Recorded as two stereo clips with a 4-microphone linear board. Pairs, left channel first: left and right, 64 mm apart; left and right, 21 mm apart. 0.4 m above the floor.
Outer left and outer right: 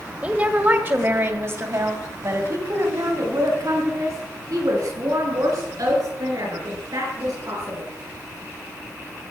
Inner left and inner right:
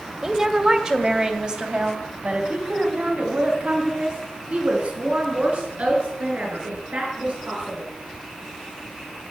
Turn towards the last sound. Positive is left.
turn(degrees=-70)  # may be behind; listen again after turning